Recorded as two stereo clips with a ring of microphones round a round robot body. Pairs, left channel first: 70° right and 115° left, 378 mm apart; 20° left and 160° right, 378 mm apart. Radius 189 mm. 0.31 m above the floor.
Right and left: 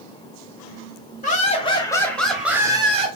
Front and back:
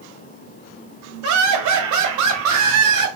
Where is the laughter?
130° right, 1.9 m; by 3.1 s 175° left, 1.6 m.